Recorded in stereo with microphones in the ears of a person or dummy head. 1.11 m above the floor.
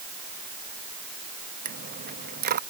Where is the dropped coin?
50° right (ahead or behind).